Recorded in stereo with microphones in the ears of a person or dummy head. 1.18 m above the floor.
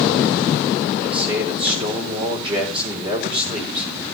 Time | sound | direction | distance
1.0 | a man speaking | 25° right (ahead or behind) | 5 m